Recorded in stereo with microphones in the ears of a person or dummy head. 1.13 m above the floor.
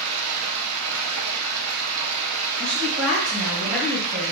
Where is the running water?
75° right (ahead or behind), 0.7 m.